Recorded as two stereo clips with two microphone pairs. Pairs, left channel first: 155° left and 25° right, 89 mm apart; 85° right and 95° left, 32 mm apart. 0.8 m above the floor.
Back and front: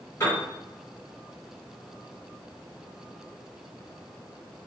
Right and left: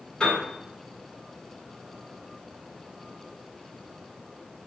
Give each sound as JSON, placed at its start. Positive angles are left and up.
{"t": 0.2, "sound": "a piano", "azimuth_deg": -145, "distance_m": 1.8}